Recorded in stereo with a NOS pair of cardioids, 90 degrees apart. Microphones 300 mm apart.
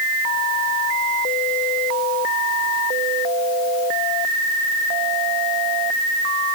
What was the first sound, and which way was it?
Only background noise.